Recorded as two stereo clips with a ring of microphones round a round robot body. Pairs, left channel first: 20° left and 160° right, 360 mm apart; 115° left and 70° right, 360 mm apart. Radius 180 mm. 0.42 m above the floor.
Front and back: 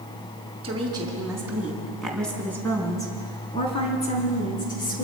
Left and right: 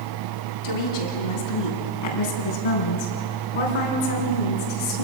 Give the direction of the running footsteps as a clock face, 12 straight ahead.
I don't hear running footsteps.